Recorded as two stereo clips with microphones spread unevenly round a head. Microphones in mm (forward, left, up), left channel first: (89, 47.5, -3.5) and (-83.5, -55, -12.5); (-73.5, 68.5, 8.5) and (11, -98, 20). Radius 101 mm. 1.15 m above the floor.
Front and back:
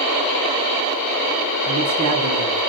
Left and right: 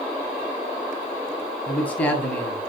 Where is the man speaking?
160° right, 6.5 m.